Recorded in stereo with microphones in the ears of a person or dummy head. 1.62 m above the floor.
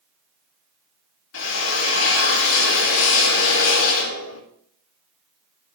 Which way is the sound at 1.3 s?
75° left (ahead or behind).